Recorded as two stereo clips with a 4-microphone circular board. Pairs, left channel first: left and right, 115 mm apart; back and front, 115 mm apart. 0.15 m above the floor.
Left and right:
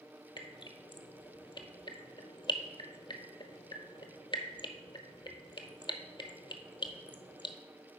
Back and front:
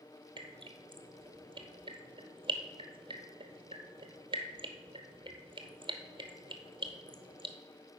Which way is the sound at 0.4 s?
45° left.